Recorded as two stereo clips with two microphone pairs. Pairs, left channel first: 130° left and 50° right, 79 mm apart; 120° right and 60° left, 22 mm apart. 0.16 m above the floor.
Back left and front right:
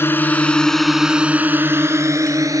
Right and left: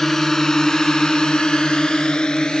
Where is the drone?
175° left; by 2.6 s 85° right.